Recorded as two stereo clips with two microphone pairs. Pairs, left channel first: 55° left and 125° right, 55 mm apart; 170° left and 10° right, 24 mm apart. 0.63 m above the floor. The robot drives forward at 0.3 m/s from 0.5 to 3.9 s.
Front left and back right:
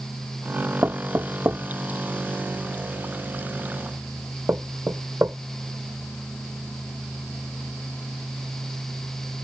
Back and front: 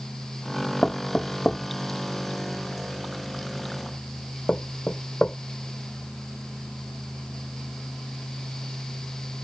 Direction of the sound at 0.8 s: 150° right.